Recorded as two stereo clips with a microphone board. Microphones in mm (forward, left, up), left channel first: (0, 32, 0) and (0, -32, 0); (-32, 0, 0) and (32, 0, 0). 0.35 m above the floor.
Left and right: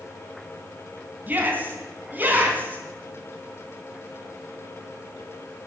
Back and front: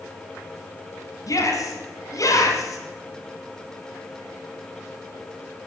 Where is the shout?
150° right, 3 m.